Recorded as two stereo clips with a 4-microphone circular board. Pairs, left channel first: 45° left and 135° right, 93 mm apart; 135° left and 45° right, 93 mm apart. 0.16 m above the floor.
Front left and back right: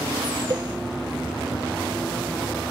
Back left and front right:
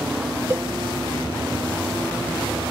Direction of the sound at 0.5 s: 100° right.